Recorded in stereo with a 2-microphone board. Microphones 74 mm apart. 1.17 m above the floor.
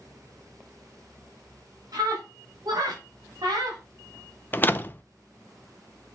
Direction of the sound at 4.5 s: 25° left (ahead or behind).